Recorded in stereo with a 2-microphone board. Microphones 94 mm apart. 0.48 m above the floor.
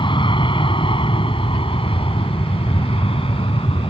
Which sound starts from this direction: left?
An aircraft, at 0.0 s.